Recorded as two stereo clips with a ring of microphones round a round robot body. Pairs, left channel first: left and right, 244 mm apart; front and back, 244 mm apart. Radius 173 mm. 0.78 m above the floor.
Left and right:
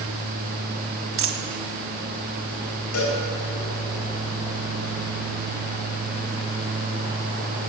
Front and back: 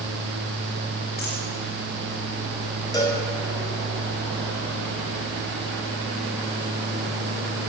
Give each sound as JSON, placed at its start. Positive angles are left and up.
{"t": 1.2, "sound": "a dropped coin", "azimuth_deg": -60, "distance_m": 1.3}
{"t": 2.9, "sound": "a cowbell", "azimuth_deg": 75, "distance_m": 3.5}